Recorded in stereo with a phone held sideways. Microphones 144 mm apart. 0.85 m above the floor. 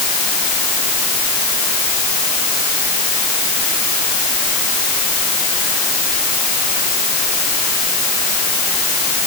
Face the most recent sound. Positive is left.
No sound to turn to.